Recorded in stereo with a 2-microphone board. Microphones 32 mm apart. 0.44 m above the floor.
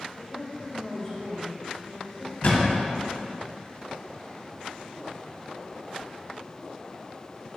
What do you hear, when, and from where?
0.1 s a woman speaking: 15° left (ahead or behind), 2.0 m
2.4 s a thud: 60° left (ahead or behind), 1.6 m